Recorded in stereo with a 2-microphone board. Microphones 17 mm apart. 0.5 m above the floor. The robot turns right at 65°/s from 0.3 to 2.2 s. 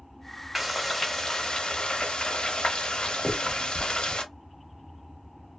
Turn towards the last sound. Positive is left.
turn(degrees=10)  # may be behind; listen again after turning